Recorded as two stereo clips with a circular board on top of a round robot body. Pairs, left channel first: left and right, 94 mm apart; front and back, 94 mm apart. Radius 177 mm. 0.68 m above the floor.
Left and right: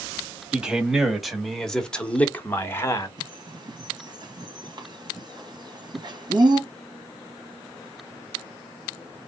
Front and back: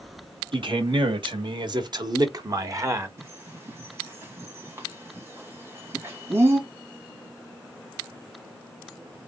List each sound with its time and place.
0.5 s a man speaking: 170° right, 1.9 m; by 3.1 s 135° left, 1.3 m
3.2 s a bird: 120° right, 2 m